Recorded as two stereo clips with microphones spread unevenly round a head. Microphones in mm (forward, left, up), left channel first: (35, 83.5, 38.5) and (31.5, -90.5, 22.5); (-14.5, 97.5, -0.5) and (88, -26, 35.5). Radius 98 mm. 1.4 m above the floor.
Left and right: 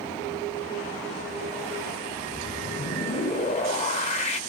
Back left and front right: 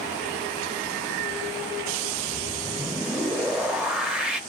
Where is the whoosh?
35° left, 0.7 m.